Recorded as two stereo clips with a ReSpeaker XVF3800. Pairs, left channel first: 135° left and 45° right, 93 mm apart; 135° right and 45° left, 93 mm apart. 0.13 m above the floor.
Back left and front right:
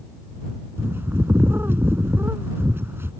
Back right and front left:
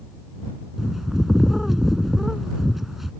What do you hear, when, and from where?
0.8 s a bird: 40° right